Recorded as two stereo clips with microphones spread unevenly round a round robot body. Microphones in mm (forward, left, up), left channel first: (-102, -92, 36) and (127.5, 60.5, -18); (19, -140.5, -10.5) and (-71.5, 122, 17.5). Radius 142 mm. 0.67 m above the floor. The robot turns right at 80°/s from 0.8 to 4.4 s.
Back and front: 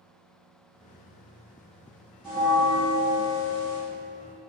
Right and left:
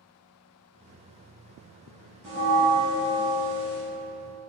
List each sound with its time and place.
2.2 s a bell: 105° left, 1.3 m; by 3.8 s 130° right, 1.3 m